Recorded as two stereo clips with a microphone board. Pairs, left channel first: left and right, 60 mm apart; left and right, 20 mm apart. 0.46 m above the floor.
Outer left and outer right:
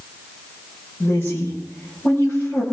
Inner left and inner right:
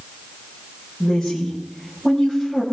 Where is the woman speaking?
40° left (ahead or behind), 8.5 m; by 2.6 s 35° left (ahead or behind), 9.5 m.